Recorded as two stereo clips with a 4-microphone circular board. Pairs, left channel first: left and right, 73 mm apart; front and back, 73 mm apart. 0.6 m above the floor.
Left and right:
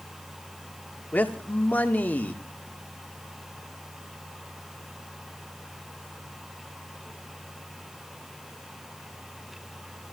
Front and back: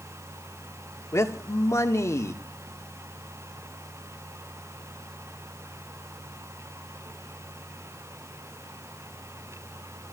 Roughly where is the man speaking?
Ahead left.